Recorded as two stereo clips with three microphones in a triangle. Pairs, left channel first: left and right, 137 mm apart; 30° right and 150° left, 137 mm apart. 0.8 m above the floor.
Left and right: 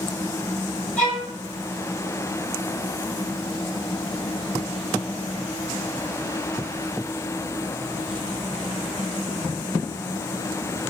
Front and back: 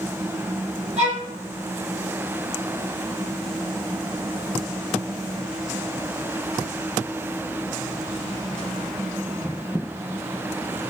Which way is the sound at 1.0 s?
170° left.